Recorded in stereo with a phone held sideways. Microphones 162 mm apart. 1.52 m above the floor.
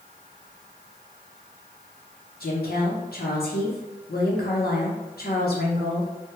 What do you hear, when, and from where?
2.4 s a woman speaking: 85° left, 1.0 m